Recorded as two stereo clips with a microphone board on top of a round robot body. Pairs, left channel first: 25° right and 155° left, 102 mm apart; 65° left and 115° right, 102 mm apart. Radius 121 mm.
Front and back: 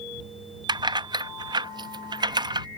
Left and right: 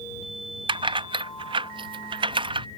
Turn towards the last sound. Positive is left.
turn(degrees=-155)